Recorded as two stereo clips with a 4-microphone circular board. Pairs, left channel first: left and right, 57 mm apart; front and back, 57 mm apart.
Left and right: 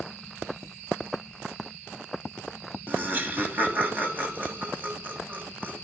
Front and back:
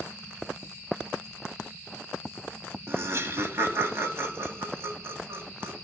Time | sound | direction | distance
2.9 | laughter | 145° right | 2.5 m